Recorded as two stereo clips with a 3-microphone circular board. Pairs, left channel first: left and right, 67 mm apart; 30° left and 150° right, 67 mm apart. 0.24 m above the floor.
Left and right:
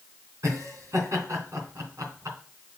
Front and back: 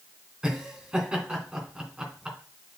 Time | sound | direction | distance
0.4 | laughter | 80° right | 3 m